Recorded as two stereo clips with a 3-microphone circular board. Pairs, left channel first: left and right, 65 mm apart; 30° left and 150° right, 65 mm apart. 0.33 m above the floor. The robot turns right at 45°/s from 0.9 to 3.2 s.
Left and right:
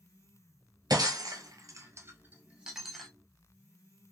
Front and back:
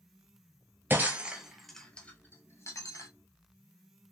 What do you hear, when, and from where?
0.9 s breaking glass: 90° right, 0.8 m; by 3.1 s 5° left, 0.8 m